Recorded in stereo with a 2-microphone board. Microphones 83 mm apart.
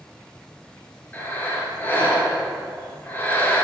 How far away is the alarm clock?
No alarm clock in this recording.